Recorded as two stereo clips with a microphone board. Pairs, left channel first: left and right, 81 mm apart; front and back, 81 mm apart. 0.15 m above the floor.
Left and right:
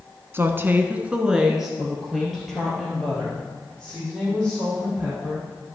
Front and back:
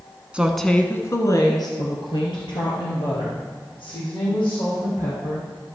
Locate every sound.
0.3 s a woman speaking: 115° right, 1.2 m; by 5.5 s 10° left, 7 m